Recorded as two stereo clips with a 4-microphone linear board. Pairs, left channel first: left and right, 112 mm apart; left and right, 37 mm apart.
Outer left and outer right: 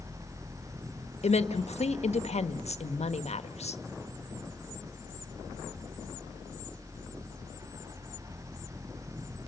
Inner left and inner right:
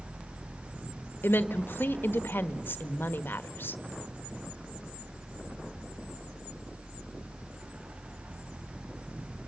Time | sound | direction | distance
1.2 | a woman speaking | 75° left (ahead or behind) | 1.5 m